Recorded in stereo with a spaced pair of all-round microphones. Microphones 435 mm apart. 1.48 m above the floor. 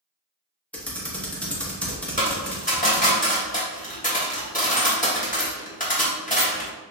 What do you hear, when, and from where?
0.7 s typing on a keyboard: 5° left (ahead or behind), 0.9 m
2.2 s a dropped coin: 20° left (ahead or behind), 1.2 m